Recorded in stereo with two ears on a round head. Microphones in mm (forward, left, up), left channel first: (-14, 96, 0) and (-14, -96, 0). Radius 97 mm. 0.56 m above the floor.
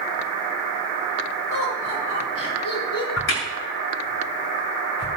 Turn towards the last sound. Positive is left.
turn(degrees=60)  # may be behind; listen again after turning